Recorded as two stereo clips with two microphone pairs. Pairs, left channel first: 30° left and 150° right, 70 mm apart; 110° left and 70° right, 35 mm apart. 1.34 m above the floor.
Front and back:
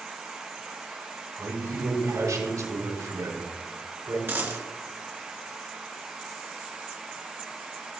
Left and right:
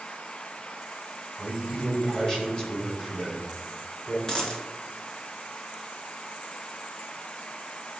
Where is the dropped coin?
165° left, 1.9 m.